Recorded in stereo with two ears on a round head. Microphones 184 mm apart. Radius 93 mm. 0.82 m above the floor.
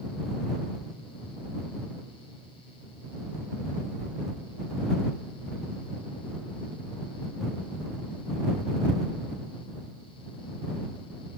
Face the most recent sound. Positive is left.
No sound to turn to.